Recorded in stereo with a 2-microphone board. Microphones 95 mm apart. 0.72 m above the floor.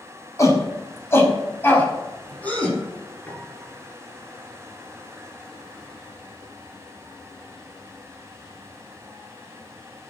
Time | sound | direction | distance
0.4 | a shout | 30° left (ahead or behind) | 5 m
3.3 | a piano | 15° left (ahead or behind) | 4 m